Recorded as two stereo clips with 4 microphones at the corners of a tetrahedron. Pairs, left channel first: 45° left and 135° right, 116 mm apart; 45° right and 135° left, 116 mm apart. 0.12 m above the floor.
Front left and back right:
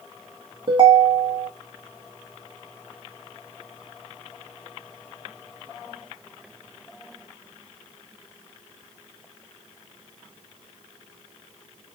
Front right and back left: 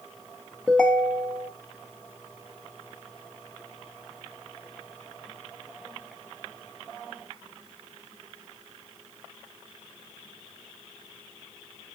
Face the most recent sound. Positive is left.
turn(degrees=-125)